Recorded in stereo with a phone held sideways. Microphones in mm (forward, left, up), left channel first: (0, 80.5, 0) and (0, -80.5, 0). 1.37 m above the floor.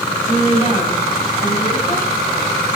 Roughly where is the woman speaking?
Left.